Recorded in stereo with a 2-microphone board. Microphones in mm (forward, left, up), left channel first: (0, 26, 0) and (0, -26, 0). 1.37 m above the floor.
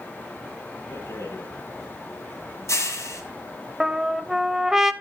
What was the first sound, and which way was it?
A rattle, 65° left (ahead or behind).